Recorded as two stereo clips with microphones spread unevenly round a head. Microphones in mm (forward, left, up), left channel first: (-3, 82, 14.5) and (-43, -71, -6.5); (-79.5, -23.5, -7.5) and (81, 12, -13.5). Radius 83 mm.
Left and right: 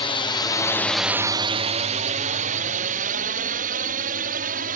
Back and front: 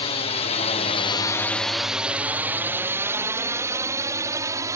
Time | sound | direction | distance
0.0 | a drone | 135° left | ?